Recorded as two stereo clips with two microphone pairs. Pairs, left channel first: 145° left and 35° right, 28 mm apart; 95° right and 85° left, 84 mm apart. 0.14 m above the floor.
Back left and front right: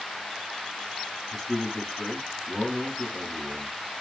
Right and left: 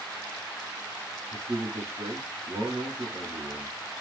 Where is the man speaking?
75° left, 1.6 m.